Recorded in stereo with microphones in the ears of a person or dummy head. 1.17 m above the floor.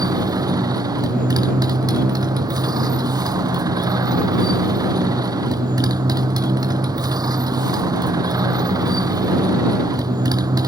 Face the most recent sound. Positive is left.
turn(degrees=-20)  # may be behind; listen again after turning